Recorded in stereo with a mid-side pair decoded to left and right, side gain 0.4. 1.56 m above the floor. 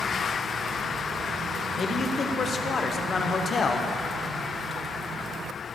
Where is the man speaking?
50° left, 1.2 m.